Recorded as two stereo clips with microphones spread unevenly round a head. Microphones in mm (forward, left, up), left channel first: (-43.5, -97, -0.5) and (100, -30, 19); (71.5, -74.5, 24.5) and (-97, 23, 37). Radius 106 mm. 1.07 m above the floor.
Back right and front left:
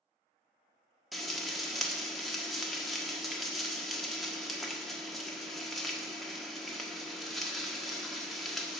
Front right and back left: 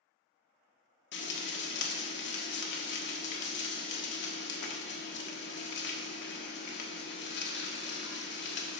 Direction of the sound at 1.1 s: 65° right.